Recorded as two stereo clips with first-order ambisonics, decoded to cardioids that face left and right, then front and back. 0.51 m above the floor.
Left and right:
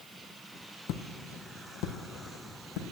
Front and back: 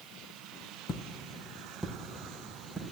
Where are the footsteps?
60° left, 0.9 m; by 2.8 s 100° left, 1.9 m.